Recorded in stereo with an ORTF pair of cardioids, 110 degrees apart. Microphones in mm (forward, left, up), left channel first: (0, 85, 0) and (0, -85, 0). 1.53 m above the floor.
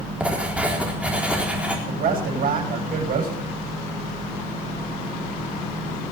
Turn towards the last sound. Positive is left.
turn(degrees=-55)